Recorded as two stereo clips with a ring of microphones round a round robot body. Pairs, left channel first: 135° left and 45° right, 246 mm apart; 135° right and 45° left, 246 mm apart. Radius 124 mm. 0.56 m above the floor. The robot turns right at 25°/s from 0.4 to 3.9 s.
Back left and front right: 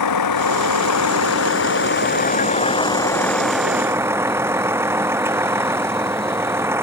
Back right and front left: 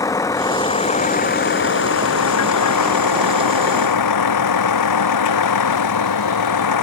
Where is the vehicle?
145° left; by 6.8 s 125° right.